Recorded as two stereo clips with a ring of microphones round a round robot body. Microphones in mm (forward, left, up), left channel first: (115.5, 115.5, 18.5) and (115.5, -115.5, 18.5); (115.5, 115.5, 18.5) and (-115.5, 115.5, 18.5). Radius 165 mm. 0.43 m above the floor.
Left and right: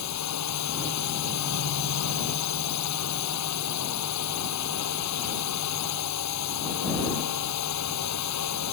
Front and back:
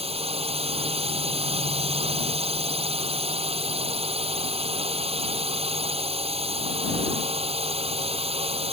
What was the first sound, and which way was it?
A drone, 115° left.